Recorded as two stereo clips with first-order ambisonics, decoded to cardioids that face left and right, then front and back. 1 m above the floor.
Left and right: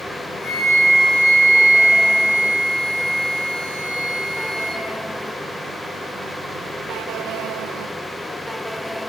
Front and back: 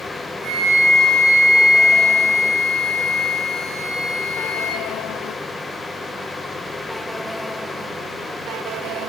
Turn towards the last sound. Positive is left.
turn(degrees=135)